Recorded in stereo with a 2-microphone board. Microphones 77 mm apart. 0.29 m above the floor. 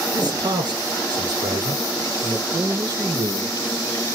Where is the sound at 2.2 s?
60° right (ahead or behind), 4.5 m.